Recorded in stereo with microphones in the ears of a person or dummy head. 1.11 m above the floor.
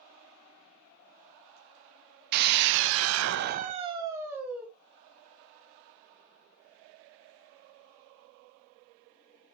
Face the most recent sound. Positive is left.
turn(degrees=-5)  # may be behind; listen again after turning